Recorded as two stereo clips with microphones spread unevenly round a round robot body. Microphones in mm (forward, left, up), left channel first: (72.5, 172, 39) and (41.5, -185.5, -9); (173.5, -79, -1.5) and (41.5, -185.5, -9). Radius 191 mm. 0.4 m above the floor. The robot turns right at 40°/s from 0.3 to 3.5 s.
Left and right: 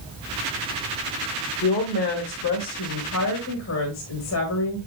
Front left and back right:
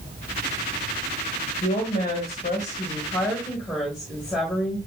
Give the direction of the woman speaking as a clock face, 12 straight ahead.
10 o'clock.